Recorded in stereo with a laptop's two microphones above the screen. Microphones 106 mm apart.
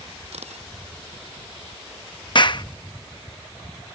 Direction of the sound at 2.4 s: 45° left (ahead or behind).